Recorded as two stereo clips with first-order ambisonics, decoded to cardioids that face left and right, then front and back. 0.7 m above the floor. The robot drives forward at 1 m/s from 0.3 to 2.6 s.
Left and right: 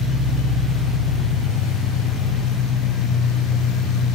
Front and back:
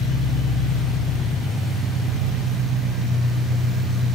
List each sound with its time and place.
0.0 s an engine running: 50° left, 1.9 m; by 4.2 s 125° left, 1.8 m